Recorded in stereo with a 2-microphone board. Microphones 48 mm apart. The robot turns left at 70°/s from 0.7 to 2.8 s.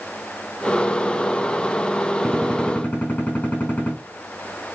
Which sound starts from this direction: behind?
A gunshot, at 2.2 s.